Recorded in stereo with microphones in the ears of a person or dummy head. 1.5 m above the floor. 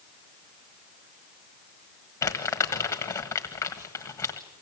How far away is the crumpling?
About 1.5 m.